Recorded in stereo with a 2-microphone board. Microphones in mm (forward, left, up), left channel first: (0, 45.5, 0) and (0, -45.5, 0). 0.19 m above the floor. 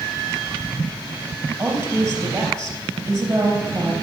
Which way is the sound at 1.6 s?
35° right (ahead or behind).